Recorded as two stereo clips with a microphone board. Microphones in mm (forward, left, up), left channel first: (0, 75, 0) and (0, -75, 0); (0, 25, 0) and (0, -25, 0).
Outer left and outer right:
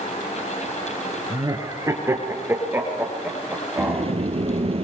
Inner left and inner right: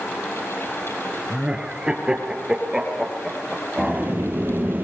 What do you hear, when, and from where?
1.3 s laughter: 25° right (ahead or behind), 3 m; by 4.1 s 5° right (ahead or behind), 4.5 m
3.8 s a sliding door: 40° right (ahead or behind), 1.3 m